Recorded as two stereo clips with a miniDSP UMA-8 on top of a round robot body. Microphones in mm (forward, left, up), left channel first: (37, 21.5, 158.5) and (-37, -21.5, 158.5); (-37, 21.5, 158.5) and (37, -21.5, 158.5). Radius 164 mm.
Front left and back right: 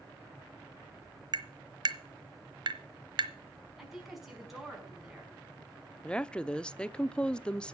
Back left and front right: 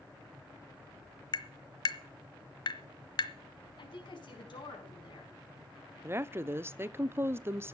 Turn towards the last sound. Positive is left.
turn(degrees=-35)